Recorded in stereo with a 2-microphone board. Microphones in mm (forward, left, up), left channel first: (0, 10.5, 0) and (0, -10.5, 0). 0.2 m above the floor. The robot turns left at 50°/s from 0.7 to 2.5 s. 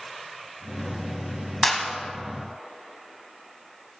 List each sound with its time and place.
1.6 s a clap: 10° left (ahead or behind), 1.1 m; by 1.9 s 15° left (ahead or behind), 1.1 m